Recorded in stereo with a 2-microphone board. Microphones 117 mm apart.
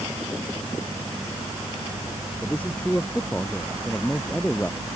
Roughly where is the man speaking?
Centre.